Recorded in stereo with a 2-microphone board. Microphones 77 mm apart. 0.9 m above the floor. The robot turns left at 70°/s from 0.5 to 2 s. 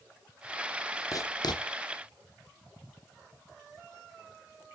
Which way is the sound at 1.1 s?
50° left (ahead or behind).